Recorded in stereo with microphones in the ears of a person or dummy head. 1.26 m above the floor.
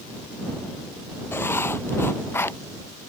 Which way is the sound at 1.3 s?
15° left (ahead or behind).